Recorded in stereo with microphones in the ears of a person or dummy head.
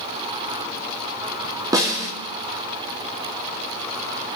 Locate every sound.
1.7 s a snare drum: 15° right (ahead or behind), 2.5 m